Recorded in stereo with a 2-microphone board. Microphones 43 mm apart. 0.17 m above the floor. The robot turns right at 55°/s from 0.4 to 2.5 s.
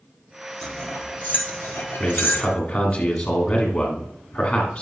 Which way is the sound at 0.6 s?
5° left (ahead or behind).